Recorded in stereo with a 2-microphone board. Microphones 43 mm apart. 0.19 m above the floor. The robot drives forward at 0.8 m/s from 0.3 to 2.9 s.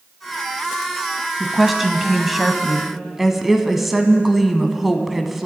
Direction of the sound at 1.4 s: 5° right (ahead or behind).